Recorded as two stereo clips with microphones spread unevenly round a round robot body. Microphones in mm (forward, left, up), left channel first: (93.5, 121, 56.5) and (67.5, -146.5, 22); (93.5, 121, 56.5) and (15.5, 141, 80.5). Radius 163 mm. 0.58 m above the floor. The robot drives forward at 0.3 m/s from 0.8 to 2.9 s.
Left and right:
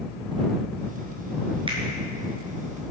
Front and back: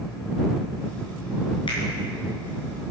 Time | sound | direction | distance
1.7 | a finger snap | 25° right | 6.5 m